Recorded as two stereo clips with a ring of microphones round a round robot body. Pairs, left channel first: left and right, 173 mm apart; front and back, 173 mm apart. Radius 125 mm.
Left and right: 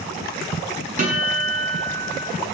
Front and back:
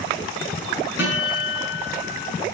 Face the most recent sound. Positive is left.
turn(degrees=-50)